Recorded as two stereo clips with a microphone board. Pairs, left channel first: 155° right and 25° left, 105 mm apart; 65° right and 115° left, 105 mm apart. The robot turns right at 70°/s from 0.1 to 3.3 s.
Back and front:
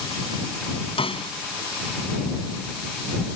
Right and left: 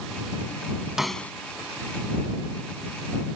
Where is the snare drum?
165° right; by 1.3 s 140° right.